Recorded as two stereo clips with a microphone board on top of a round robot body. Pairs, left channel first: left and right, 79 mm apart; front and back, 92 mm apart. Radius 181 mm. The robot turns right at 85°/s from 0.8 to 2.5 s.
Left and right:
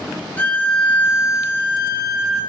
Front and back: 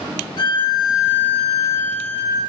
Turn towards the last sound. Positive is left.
turn(degrees=165)